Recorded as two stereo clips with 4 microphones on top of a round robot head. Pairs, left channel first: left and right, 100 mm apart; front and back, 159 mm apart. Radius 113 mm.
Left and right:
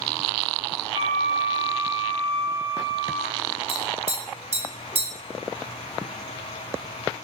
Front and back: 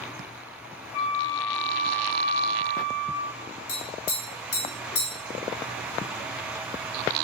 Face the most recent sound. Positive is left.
turn(degrees=-25)